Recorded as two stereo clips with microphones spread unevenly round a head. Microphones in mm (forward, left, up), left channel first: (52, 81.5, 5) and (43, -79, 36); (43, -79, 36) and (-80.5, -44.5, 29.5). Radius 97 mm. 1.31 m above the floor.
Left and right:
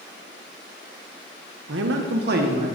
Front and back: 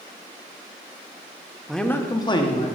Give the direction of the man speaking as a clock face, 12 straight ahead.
4 o'clock.